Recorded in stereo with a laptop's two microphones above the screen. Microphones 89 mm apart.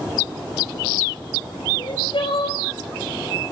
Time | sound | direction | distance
1.8 | crying | 70° left (ahead or behind) | 5.5 m